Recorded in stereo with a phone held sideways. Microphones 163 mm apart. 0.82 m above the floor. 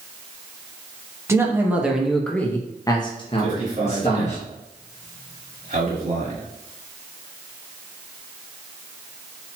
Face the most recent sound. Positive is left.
turn(degrees=-50)  # may be behind; listen again after turning